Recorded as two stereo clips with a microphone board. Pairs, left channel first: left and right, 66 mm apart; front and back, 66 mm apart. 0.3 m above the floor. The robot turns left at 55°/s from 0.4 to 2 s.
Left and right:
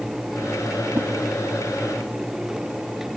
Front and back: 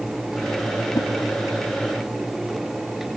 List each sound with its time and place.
0.9 s a whoosh: 25° right, 0.5 m; by 1.1 s 35° right, 0.5 m